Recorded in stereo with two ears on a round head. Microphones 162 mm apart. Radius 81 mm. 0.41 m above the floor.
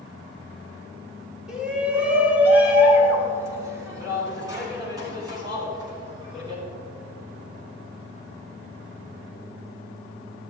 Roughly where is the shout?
Centre.